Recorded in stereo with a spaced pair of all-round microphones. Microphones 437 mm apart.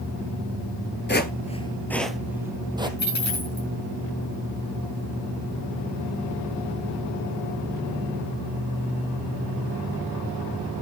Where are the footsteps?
25° left (ahead or behind), 1.3 m; by 2.9 s 10° right (ahead or behind), 2.5 m.